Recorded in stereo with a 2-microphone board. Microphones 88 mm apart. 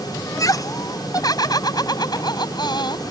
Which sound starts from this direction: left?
Laughter, at 0.3 s.